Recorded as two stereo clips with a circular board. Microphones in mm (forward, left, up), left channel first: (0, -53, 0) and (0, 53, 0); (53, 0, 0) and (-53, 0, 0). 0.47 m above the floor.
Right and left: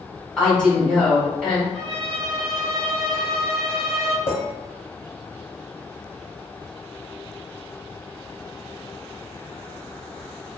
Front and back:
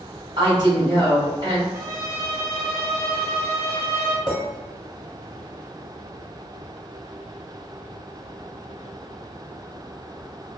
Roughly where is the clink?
Behind right.